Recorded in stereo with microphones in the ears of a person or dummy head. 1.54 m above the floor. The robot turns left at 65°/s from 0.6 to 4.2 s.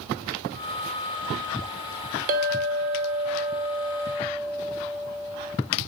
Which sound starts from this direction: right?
A clink, at 2.3 s.